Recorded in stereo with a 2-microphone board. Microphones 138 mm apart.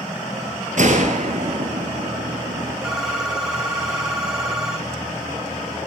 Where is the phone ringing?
5° right (ahead or behind), 1.6 m.